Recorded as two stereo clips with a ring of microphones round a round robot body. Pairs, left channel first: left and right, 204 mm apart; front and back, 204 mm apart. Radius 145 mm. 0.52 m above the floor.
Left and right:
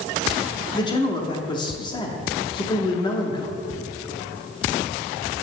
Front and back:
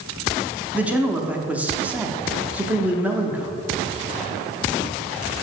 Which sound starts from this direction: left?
A man speaking, at 0.7 s.